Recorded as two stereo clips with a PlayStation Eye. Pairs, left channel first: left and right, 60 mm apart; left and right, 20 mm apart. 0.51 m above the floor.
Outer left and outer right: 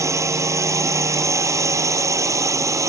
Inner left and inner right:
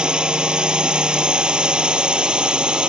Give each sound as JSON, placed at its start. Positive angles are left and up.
{"t": 0.0, "sound": "a drone", "side_deg": -55}